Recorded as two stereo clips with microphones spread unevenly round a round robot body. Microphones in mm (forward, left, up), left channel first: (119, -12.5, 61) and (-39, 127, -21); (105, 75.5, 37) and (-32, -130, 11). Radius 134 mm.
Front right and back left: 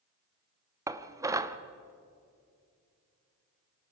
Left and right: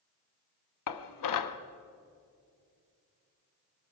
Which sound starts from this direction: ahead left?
Dishes clattering, at 0.9 s.